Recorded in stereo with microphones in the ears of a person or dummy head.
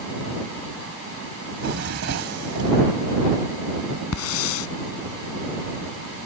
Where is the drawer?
65° right (ahead or behind).